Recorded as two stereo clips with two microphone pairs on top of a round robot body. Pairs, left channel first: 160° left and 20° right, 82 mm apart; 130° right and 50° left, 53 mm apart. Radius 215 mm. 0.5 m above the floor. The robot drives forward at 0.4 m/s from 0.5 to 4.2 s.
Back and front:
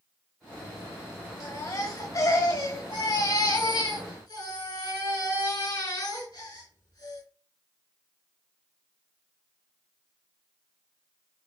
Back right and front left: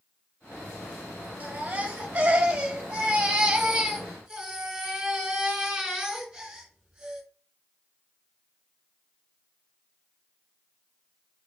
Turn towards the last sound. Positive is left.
turn(degrees=130)